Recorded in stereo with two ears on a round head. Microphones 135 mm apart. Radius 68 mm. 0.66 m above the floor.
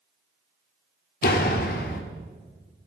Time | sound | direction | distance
1.2 | a door slam | 65° left (ahead or behind) | 1.3 m